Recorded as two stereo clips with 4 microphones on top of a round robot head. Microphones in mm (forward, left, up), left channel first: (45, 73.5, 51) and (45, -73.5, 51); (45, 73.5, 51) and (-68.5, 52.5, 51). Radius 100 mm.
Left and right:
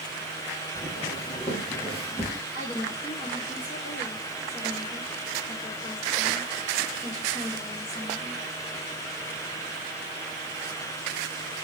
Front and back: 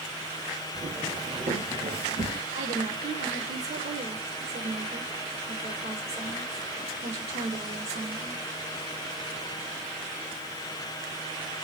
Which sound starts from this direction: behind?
A woman speaking, at 2.5 s.